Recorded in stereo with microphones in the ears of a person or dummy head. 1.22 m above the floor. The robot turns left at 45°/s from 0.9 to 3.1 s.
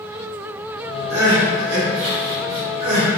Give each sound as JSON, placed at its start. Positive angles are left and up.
{"t": 1.1, "sound": "crying", "side_deg": -35, "distance_m": 1.9}